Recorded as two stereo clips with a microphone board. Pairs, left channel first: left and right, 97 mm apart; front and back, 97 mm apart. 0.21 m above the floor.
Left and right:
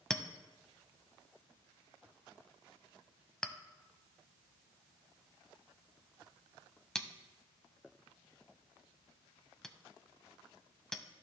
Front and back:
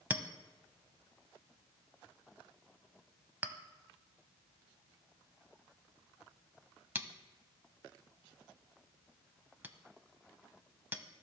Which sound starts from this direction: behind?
A clink, at 0.1 s.